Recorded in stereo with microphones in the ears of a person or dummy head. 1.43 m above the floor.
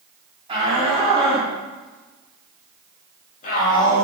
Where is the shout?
30° right (ahead or behind), 4 m; by 4.1 s 55° left (ahead or behind), 3 m.